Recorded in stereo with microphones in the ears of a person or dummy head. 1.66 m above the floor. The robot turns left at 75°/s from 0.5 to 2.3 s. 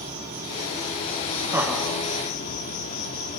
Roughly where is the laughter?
Behind.